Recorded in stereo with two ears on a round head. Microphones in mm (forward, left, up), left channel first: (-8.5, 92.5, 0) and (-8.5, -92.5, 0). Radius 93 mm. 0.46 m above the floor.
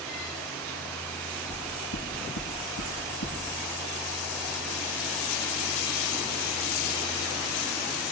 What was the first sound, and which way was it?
Knocking, 70° left (ahead or behind).